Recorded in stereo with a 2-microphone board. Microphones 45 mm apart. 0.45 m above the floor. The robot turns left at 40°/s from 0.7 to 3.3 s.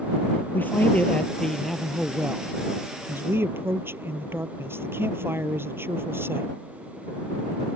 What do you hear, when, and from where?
0.5 s a man speaking: 45° left; by 6.5 s 60° right